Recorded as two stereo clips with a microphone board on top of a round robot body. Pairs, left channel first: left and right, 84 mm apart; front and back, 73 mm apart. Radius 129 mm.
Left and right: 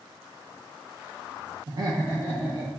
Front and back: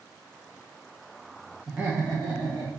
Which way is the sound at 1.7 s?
90° right.